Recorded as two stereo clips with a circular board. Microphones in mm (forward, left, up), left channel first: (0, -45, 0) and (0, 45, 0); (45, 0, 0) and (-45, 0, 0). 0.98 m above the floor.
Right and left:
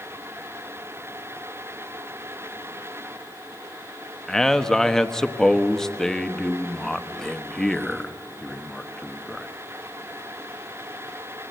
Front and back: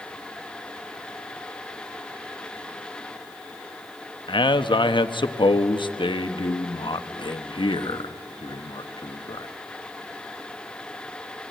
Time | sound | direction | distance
4.3 | a man speaking | 5° right | 1.1 m